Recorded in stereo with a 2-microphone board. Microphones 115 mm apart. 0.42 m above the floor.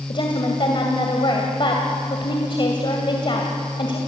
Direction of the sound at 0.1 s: 45° left (ahead or behind).